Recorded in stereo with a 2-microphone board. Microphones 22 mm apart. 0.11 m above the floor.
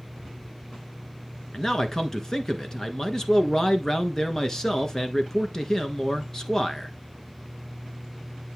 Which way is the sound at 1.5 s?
25° left (ahead or behind).